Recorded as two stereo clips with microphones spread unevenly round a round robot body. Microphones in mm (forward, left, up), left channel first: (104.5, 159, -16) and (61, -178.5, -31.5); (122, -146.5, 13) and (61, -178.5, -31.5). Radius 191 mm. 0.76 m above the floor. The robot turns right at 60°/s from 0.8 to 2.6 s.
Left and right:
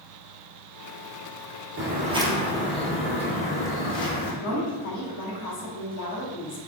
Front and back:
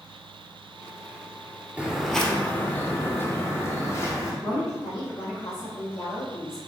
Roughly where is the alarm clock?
I don't hear an alarm clock.